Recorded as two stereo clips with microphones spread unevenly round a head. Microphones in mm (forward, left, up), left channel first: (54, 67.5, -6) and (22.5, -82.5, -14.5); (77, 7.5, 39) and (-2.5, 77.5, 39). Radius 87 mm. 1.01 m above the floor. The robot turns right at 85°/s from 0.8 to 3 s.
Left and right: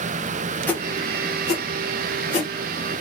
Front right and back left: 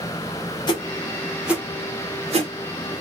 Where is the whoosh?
Straight ahead, 1.5 m; by 2.5 s 145° left, 1.5 m.